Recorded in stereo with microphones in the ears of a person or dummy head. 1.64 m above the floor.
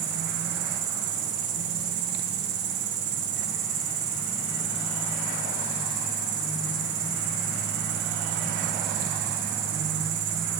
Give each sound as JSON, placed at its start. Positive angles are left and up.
{"t": 0.0, "sound": "an insect", "side_deg": -70, "distance_m": 2.5}